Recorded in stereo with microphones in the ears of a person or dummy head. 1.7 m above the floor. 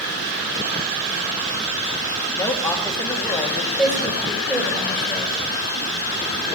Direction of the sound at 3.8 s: 5° left (ahead or behind).